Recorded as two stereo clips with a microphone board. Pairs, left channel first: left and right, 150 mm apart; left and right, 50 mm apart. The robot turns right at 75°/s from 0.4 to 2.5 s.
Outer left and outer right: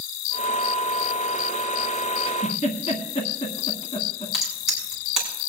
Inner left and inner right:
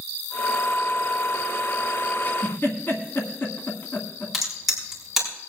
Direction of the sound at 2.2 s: 35° left (ahead or behind).